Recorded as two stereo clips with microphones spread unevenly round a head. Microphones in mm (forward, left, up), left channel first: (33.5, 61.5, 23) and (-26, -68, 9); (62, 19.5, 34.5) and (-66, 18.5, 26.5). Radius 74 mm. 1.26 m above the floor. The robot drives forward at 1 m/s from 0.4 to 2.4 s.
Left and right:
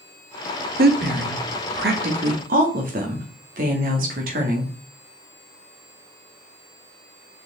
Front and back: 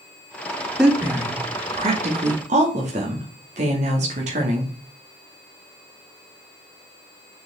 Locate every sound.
0.8 s a woman speaking: 95° right, 1.3 m; by 4.7 s 145° right, 2 m